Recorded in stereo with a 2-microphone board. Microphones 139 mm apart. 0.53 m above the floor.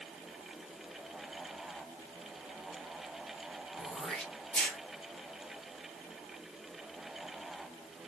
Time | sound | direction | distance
3.8 | throat clearing | 10° left (ahead or behind) | 1.2 m